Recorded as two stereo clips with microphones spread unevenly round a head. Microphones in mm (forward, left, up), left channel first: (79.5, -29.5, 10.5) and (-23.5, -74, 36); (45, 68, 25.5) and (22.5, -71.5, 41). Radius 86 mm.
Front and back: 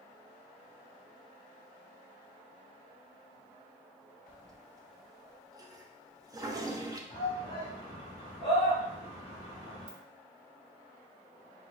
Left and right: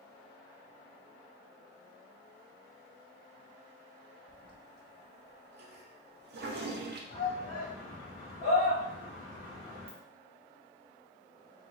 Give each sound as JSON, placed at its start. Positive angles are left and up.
{"t": 4.3, "sound": "a toilet flushing", "azimuth_deg": -90, "distance_m": 0.6}
{"t": 7.1, "sound": "a shout", "azimuth_deg": 55, "distance_m": 1.5}
{"t": 9.9, "sound": "a ringtone", "azimuth_deg": -145, "distance_m": 0.7}